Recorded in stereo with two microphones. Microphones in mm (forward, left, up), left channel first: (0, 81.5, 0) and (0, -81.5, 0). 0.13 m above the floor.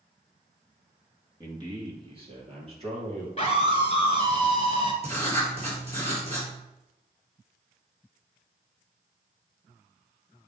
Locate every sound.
1.4 s a man speaking: 25° right (ahead or behind), 1.7 m; by 3.3 s 40° right (ahead or behind), 4 m
3.4 s a scream: 40° left (ahead or behind), 1.8 m
5.0 s writing: 40° right (ahead or behind), 2.5 m